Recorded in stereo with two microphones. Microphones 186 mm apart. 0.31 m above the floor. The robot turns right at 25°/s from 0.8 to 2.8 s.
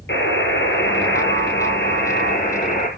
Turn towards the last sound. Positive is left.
turn(degrees=130)